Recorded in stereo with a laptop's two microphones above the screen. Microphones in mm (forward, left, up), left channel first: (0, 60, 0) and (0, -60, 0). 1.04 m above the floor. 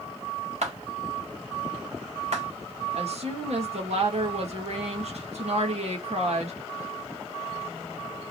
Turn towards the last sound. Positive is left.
turn(degrees=-60)  # may be behind; listen again after turning